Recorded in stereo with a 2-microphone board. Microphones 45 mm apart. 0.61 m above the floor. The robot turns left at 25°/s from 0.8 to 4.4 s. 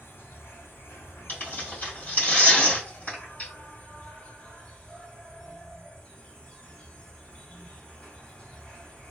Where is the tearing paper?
40° left (ahead or behind), 1.6 m; by 3.5 s 35° left (ahead or behind), 1.6 m.